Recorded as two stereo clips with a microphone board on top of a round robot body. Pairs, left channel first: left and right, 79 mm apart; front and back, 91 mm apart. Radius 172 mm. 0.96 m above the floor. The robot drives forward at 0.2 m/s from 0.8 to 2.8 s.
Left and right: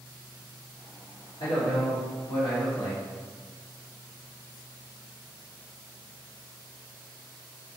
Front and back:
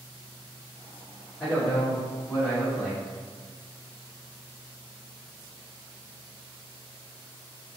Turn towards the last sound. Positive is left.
turn(degrees=85)